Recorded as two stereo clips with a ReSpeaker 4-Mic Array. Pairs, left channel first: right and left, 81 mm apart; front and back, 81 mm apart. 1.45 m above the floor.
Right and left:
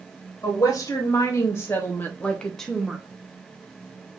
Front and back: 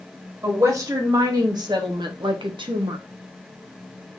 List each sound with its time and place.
0.4 s a woman speaking: 130° right, 1.9 m; by 3.0 s 175° left, 1.0 m